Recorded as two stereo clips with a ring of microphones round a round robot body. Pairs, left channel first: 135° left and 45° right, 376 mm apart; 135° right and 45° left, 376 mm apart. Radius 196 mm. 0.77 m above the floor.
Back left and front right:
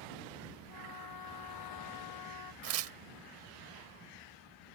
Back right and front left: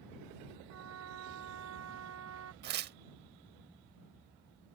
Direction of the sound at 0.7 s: 100° left.